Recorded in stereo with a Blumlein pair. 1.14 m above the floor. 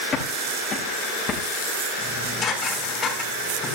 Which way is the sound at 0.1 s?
25° left.